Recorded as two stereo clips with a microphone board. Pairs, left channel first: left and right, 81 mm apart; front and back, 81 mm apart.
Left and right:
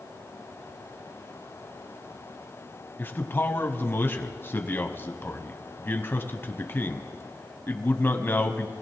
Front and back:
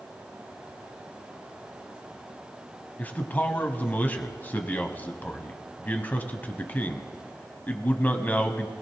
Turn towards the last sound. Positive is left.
turn(degrees=50)